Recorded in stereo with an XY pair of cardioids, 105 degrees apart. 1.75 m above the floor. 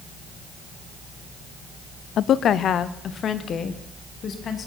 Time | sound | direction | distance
2.2 | a woman speaking | 65° left | 0.5 m